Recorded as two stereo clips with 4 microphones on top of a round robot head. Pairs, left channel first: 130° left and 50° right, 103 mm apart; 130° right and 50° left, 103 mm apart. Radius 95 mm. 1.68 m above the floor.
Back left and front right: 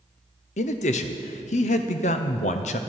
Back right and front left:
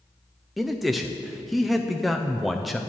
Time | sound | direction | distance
0.6 | a man speaking | 140° left | 0.5 m